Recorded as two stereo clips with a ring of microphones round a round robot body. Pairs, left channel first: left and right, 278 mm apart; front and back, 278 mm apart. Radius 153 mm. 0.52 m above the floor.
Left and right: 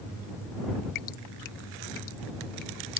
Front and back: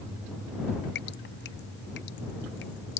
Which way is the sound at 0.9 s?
60° left.